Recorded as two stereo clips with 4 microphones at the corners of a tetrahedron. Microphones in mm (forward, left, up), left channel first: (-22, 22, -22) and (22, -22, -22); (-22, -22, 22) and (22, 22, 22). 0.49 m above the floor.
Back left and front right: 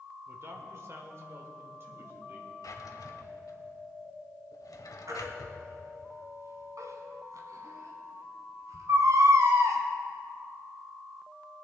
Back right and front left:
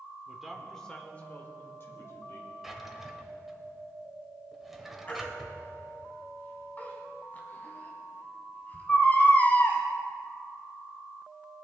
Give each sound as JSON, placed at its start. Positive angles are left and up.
{"t": 0.3, "sound": "a man speaking", "azimuth_deg": -30, "distance_m": 1.5}
{"t": 2.6, "sound": "a drawer", "azimuth_deg": 130, "distance_m": 1.1}
{"t": 5.1, "sound": "a baby crying", "azimuth_deg": -70, "distance_m": 1.8}